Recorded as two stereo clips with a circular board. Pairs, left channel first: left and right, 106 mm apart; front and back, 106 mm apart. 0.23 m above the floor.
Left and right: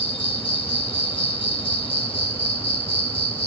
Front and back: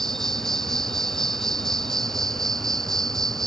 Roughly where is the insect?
Left.